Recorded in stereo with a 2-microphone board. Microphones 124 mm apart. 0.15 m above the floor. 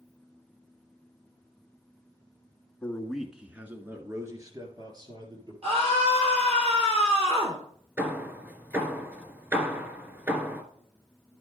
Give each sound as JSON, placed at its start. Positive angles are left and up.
{"t": 2.8, "sound": "a man speaking", "side_deg": 10, "distance_m": 1.2}
{"t": 5.6, "sound": "a scream", "side_deg": -50, "distance_m": 2.5}
{"t": 8.0, "sound": "hammering", "side_deg": -20, "distance_m": 2.0}